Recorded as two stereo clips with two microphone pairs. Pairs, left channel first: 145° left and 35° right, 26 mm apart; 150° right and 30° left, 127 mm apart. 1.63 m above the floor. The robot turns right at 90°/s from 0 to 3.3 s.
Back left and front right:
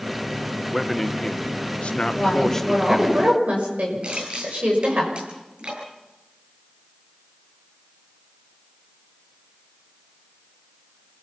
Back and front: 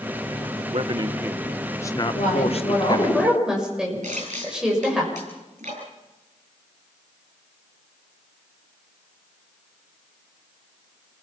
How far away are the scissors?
I don't hear scissors.